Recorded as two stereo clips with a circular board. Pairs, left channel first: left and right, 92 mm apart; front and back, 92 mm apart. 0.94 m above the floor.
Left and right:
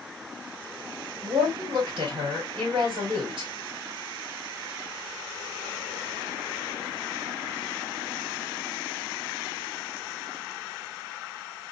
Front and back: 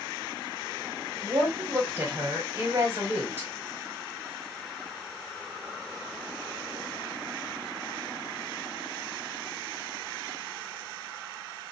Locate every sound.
1.2 s a woman speaking: 115° right, 3 m